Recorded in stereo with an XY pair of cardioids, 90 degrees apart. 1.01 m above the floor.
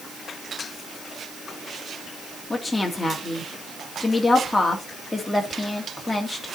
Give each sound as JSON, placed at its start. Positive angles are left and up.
{"t": 2.5, "sound": "a woman speaking", "azimuth_deg": 15, "distance_m": 1.9}